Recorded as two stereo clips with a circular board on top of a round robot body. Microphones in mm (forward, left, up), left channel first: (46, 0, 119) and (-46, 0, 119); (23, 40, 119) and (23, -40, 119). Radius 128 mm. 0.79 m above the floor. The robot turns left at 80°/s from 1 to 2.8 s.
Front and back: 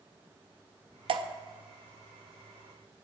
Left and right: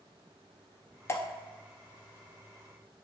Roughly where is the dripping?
Behind left.